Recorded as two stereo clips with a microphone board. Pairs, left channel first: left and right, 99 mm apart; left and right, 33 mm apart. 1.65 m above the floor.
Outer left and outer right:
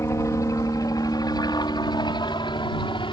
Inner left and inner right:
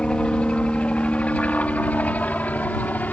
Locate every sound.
0.0 s a helicopter: 30° left (ahead or behind); by 3.1 s 55° left (ahead or behind)